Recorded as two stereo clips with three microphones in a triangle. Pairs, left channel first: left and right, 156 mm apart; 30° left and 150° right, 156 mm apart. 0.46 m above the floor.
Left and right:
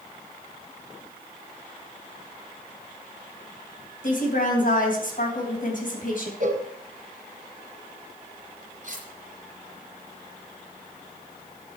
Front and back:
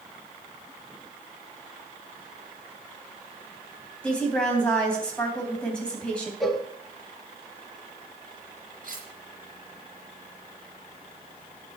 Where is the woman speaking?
115° left, 3 m.